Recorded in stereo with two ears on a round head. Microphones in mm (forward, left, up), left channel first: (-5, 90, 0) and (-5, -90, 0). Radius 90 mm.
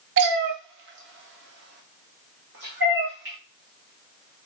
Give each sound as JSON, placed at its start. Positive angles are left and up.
{"t": 0.2, "sound": "a cat meowing", "side_deg": -60, "distance_m": 0.6}